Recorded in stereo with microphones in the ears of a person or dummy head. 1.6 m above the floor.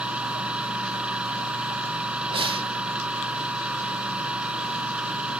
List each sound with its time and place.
0.0 s a machine running: 5° right (ahead or behind)
2.3 s breathing: 30° right (ahead or behind)